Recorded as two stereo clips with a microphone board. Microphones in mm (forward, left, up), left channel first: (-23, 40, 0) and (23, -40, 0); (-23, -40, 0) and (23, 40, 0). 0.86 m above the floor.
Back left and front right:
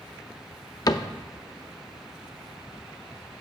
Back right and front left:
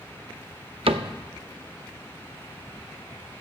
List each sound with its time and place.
0.9 s a cupboard door: 70° left, 0.6 m